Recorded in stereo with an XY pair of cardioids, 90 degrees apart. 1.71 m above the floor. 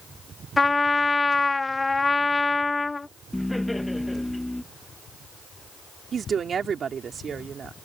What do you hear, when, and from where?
0.6 s a trumpet: 25° left
3.3 s laughter: 10° left
6.1 s a woman speaking: 55° right